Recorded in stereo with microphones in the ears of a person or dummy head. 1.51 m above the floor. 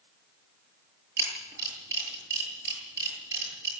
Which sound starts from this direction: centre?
A camera shutter, at 1.2 s.